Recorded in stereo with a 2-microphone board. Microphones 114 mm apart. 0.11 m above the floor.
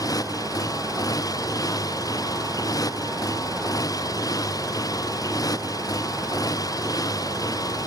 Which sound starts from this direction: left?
A motorcycle, at 0.0 s.